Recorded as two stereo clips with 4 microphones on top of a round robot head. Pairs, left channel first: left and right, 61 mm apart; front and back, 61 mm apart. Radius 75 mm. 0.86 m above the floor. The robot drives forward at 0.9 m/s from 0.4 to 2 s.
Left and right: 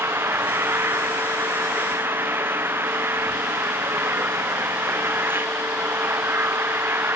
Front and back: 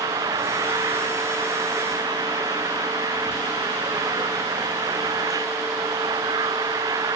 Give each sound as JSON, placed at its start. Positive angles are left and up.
{"t": 0.0, "sound": "an engine running", "azimuth_deg": -145}